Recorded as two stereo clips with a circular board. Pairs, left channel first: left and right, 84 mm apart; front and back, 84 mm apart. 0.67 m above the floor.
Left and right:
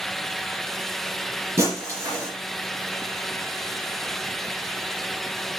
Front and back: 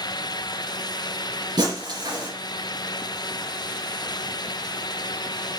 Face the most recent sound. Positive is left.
turn(degrees=-145)